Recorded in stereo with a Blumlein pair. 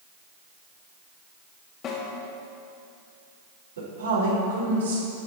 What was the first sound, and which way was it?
A snare drum, 30° left.